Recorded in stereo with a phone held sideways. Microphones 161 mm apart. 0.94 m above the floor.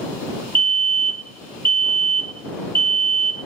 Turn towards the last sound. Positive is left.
turn(degrees=-30)  # may be behind; listen again after turning